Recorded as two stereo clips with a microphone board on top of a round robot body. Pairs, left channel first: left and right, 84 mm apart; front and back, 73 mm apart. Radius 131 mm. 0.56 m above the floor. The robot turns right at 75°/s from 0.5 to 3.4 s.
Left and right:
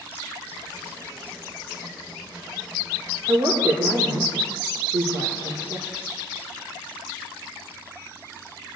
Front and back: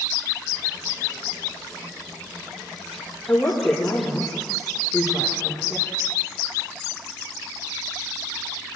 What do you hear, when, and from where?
3.3 s a woman speaking: 85° right, 1.9 m; by 5.9 s 75° right, 1.9 m